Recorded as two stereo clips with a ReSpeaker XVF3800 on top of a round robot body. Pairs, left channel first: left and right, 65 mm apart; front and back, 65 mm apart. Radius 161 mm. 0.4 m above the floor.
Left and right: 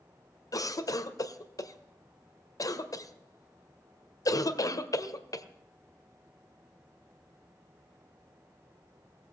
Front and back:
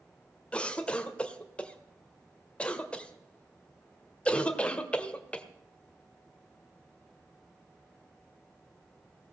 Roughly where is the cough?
Left.